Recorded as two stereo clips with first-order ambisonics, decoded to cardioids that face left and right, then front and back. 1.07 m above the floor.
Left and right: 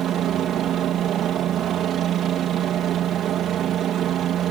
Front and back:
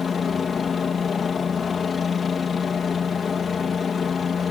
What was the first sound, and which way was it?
A helicopter, 60° right.